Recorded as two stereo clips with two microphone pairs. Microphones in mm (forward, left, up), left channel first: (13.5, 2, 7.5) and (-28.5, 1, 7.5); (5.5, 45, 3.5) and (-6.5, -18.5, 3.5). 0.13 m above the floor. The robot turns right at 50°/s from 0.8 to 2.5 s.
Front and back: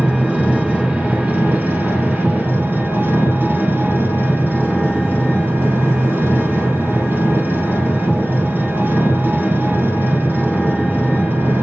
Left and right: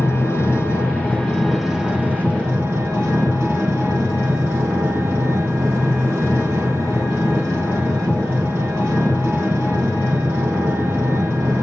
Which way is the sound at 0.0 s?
130° left.